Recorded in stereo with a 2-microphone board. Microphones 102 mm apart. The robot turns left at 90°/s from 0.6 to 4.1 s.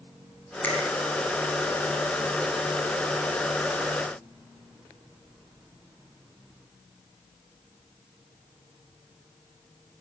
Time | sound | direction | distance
0.6 | a finger snap | 15° left (ahead or behind) | 7.5 m